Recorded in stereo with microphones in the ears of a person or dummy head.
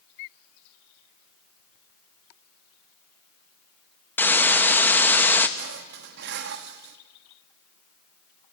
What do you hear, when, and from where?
4.2 s a hiss: 10° left (ahead or behind), 1.0 m
5.6 s dishes clattering: 60° right (ahead or behind), 1.3 m